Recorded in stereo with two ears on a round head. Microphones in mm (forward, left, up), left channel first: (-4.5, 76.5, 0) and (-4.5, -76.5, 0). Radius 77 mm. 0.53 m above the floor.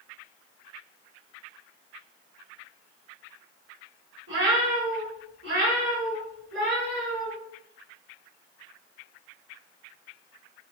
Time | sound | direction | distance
4.3 | a cat meowing | 70° right (ahead or behind) | 1.2 m